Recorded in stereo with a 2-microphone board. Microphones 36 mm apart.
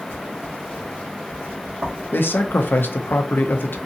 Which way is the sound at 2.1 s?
70° left (ahead or behind).